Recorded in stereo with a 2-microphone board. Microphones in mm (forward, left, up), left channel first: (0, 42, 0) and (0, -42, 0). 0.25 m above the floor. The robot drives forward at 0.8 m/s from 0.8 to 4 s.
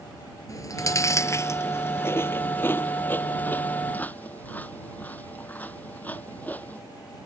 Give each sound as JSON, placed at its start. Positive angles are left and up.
{"t": 0.5, "sound": "chewing", "side_deg": 40}